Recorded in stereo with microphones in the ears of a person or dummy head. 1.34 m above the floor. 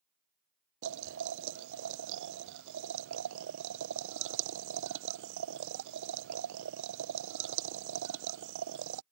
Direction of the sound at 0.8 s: 65° right (ahead or behind).